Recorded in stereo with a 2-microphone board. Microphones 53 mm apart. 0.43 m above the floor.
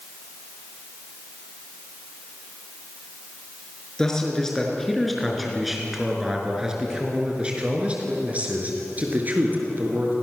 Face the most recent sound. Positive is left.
turn(degrees=-40)  # may be behind; listen again after turning